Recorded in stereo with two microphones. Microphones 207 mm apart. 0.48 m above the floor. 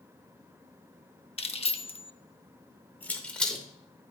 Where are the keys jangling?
30° left (ahead or behind), 0.6 m; by 3.6 s centre (ahead or behind), 1.1 m.